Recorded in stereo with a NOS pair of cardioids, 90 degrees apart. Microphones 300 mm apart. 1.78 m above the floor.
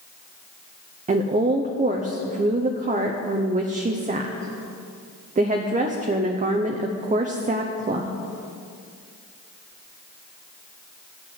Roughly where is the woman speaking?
Ahead right.